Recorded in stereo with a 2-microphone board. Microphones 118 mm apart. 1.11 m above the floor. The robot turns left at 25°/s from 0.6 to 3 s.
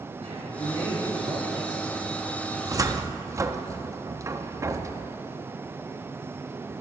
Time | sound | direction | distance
0.2 | a man speaking | 115° right | 5 m
2.5 | a cupboard door | 35° right (ahead or behind) | 0.6 m